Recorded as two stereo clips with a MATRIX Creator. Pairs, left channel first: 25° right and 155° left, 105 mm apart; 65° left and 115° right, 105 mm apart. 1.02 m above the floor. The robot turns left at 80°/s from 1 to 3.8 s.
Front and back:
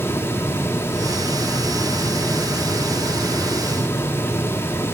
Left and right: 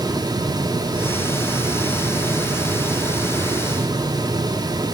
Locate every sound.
Only background noise.